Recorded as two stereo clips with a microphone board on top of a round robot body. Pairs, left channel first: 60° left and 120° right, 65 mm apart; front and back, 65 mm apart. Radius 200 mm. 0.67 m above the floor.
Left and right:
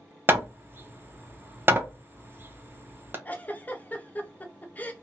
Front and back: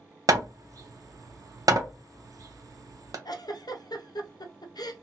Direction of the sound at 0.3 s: 170° right.